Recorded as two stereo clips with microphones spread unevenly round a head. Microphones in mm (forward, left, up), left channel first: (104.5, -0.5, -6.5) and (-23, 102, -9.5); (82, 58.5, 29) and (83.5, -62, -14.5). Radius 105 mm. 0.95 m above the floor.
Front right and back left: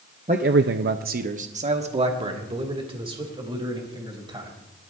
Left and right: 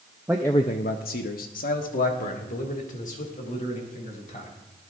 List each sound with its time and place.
0.3 s a man speaking: 160° right, 0.5 m; by 4.5 s 80° left, 4 m